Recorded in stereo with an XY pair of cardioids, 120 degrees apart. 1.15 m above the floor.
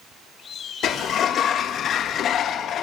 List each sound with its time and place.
0.8 s a sliding door: 60° left, 1.4 m